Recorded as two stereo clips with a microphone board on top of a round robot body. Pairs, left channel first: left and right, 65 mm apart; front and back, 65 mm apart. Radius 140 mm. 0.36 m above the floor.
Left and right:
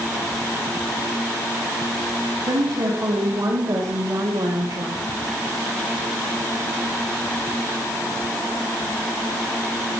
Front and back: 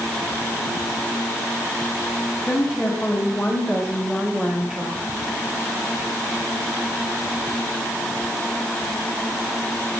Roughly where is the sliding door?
I don't hear a sliding door.